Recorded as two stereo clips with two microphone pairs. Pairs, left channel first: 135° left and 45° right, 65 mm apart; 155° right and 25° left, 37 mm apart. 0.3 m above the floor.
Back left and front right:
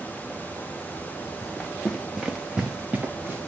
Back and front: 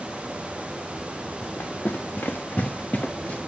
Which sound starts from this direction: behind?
Running footsteps, at 1.4 s.